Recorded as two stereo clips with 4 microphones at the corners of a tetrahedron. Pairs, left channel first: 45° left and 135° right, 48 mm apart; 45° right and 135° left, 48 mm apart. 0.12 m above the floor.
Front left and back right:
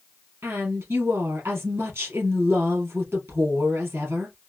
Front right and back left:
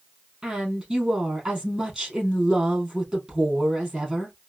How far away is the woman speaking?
About 2.5 m.